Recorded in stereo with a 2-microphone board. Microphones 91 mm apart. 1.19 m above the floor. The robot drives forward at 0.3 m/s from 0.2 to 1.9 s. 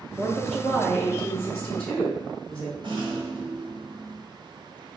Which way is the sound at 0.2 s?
10° left (ahead or behind).